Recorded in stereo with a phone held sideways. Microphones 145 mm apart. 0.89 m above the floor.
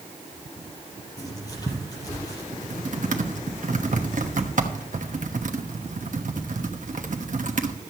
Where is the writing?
25° left (ahead or behind), 4 m.